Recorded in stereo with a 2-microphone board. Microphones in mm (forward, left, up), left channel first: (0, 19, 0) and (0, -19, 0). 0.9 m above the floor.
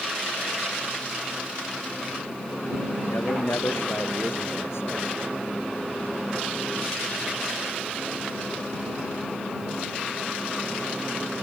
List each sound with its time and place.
3.1 s a man speaking: 90° left; by 5.0 s 85° left